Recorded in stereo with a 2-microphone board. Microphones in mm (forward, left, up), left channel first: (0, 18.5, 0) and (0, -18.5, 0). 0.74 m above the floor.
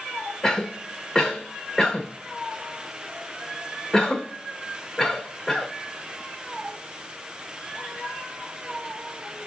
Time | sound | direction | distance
0.4 | a cough | 10° left (ahead or behind) | 2.5 m